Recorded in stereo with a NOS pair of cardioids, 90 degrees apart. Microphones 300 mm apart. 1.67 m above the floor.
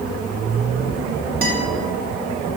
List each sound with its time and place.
1.4 s a guitar: 30° right, 3 m